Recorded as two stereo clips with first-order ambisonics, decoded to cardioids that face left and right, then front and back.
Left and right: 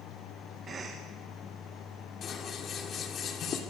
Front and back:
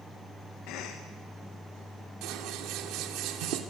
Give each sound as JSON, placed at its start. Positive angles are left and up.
{"t": 0.7, "sound": "a cough", "azimuth_deg": -25, "distance_m": 1.5}
{"t": 2.2, "sound": "scissors", "azimuth_deg": 150, "distance_m": 2.5}